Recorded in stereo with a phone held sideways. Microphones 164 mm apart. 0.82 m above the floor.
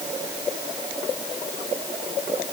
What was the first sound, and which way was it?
Only background noise.